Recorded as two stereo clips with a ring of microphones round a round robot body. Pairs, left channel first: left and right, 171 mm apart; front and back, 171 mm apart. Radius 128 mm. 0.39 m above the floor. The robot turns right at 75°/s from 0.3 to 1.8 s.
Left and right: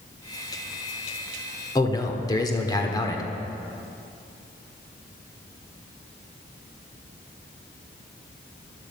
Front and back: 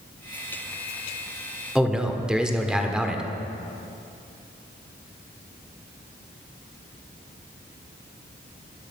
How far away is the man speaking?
About 1.4 m.